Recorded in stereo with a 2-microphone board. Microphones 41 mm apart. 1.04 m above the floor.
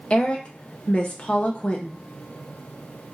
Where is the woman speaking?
30° left (ahead or behind), 0.5 m.